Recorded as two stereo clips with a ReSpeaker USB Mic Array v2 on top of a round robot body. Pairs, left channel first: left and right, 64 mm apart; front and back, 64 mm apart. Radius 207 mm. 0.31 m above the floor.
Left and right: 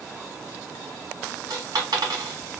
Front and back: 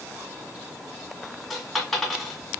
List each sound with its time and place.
1.5 s a dropped coin: 90° right, 1.8 m